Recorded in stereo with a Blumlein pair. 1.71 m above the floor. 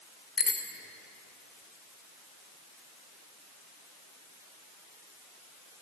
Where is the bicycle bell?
15° left, 2 m.